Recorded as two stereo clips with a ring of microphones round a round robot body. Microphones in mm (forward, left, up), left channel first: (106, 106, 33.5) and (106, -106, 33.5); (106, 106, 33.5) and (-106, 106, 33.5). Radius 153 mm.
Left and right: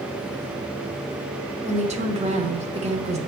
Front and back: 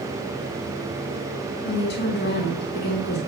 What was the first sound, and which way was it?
A woman speaking, 35° right.